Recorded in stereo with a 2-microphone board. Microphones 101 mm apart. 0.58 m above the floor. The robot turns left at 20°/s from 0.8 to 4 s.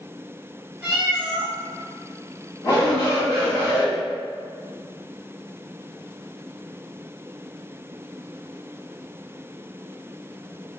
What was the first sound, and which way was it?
A cat meowing, 15° right (ahead or behind).